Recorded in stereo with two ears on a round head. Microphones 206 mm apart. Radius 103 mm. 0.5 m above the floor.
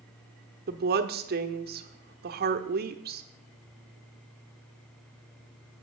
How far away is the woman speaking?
About 0.9 m.